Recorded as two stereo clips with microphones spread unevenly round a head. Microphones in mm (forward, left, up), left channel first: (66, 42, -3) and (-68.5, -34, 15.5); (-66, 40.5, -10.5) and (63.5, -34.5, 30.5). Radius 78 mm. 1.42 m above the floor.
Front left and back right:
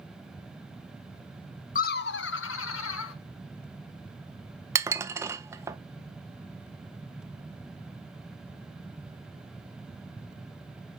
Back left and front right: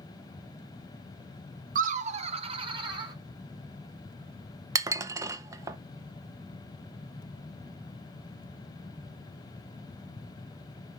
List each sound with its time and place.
1.8 s laughter: 10° right, 0.6 m; by 3.1 s 30° left, 1.6 m
4.8 s dishes clattering: 85° right, 0.6 m